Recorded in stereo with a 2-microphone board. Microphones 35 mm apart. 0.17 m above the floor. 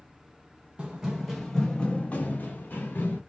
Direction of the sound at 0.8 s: 25° right (ahead or behind).